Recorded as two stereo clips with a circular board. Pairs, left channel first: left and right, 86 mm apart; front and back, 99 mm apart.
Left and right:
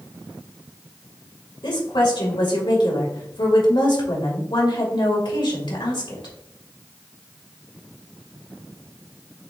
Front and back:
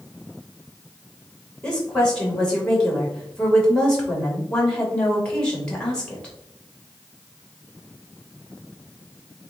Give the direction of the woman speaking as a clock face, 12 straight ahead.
9 o'clock.